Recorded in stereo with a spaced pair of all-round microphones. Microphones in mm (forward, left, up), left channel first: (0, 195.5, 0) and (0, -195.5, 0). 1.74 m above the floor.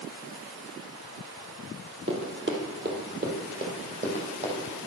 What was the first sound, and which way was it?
Running footsteps, 30° right (ahead or behind).